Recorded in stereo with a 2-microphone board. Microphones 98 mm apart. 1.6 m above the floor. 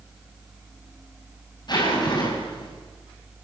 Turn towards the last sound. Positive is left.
turn(degrees=45)  # may be behind; listen again after turning